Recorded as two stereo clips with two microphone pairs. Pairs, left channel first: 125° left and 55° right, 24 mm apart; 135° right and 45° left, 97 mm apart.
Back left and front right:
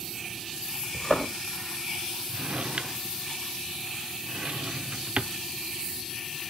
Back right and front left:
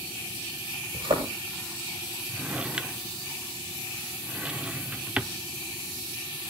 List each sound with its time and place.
0.9 s a thud: 65° left, 8.5 m
2.3 s a drawer: 30° right, 0.7 m